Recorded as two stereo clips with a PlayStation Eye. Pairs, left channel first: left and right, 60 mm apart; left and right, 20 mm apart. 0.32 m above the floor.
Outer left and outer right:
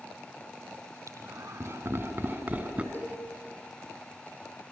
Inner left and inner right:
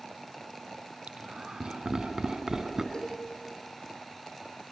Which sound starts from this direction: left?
A cowbell, at 2.9 s.